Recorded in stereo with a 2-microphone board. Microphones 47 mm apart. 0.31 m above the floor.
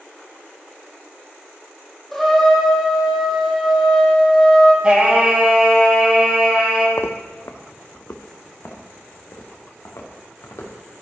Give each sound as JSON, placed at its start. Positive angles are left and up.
{"t": 2.1, "sound": "a trumpet", "side_deg": 0, "distance_m": 2.0}
{"t": 4.8, "sound": "singing", "side_deg": -20, "distance_m": 2.5}
{"t": 7.0, "sound": "footsteps", "side_deg": 60, "distance_m": 0.8}